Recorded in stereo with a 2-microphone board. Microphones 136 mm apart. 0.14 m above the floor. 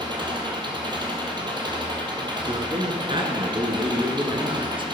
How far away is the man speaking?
About 1.4 m.